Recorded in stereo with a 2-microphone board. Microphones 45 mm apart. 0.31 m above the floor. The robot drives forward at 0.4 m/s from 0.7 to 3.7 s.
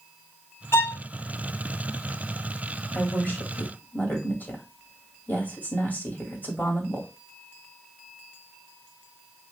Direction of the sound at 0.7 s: 65° left (ahead or behind).